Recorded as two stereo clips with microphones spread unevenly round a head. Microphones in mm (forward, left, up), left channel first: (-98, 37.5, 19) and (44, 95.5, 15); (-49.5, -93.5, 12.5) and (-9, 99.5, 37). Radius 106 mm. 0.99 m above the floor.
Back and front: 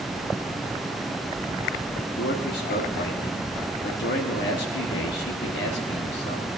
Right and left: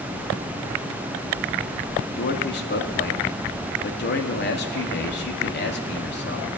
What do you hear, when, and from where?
2.2 s a man speaking: 135° right, 1.6 m